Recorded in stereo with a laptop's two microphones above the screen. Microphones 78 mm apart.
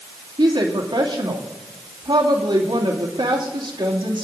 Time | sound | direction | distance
0.4 | a woman speaking | 65° right (ahead or behind) | 2.5 m